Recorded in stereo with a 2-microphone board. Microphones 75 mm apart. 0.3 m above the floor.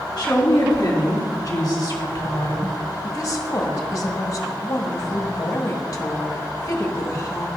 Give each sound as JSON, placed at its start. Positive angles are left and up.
{"t": 0.2, "sound": "a woman speaking", "side_deg": 60, "distance_m": 3.0}
{"t": 3.0, "sound": "a woman speaking", "side_deg": 45, "distance_m": 1.7}